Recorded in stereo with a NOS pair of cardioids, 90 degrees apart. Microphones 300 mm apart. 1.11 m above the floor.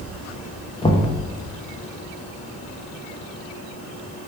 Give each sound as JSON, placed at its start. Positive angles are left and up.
{"t": 0.8, "sound": "knocking", "azimuth_deg": 15, "distance_m": 0.6}